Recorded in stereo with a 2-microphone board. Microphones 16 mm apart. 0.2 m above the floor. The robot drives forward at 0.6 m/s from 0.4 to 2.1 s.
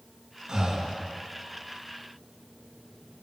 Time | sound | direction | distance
0.5 | breathing | 45° right (ahead or behind) | 3 m